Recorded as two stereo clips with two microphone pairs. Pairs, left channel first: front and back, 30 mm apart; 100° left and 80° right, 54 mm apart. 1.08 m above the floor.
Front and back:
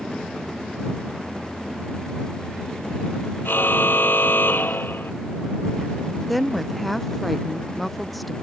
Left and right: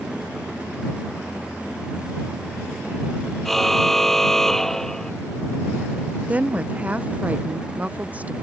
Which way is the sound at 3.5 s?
10° left.